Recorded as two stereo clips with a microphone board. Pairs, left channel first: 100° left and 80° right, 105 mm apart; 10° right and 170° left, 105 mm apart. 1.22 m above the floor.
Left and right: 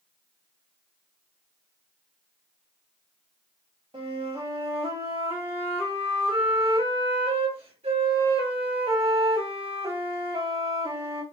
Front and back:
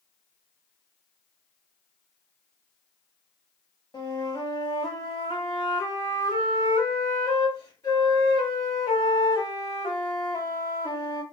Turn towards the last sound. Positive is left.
turn(degrees=-60)